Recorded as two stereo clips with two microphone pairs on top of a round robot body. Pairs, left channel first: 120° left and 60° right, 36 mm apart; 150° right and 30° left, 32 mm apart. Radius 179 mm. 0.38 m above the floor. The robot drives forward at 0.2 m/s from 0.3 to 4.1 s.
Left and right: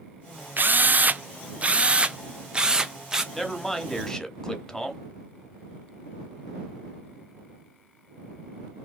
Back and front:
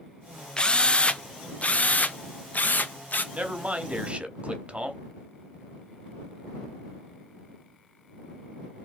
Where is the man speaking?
35° left, 1.2 m; by 5.0 s 45° left, 1.1 m.